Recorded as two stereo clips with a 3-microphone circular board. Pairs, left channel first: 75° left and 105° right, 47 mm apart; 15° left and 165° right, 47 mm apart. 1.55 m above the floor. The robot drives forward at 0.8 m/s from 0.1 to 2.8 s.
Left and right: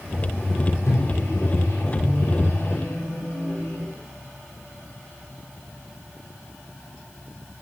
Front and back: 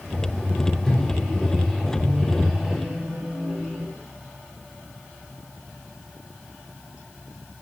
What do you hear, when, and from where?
0.8 s a microwave: 90° left, 3.5 m; by 3.9 s 115° left, 4 m